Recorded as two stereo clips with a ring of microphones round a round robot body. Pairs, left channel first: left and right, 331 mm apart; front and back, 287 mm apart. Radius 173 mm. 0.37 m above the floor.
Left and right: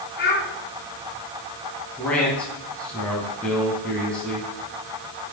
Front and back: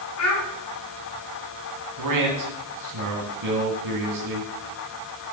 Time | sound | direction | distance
0.2 | a child speaking | 30° left | 3.5 m
2.0 | a man speaking | 175° left | 3 m